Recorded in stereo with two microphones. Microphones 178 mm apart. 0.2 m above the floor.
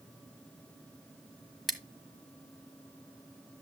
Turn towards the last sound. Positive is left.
turn(degrees=0)  # may be behind; listen again after turning